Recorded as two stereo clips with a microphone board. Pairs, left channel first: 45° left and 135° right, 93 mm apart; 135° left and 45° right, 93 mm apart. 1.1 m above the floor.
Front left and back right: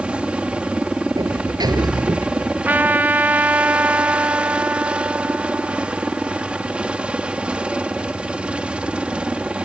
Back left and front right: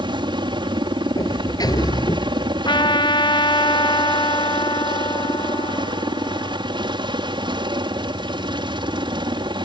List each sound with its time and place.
0.0 s a helicopter: 60° right
1.2 s a sliding door: straight behind
2.6 s a trumpet: 155° left